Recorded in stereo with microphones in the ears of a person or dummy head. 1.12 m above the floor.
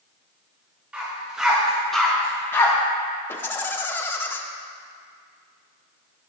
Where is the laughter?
10° left (ahead or behind), 0.9 m.